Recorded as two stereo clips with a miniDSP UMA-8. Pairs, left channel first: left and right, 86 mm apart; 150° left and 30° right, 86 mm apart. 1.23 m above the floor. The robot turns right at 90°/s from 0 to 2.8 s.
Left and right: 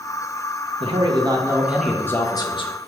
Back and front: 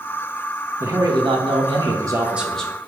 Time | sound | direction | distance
0.8 | a man speaking | 95° right | 0.9 m